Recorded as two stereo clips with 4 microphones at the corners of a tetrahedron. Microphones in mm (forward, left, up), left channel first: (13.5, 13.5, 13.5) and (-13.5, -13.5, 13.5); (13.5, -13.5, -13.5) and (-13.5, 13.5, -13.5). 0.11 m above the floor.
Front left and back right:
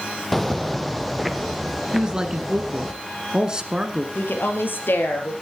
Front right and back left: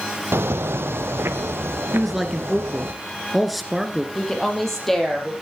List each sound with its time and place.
0.3 s footsteps: 130° left, 0.6 m; by 2.9 s 135° left, 2 m
1.9 s a man speaking: 135° right, 1.3 m
4.2 s a woman speaking: 35° left, 3.5 m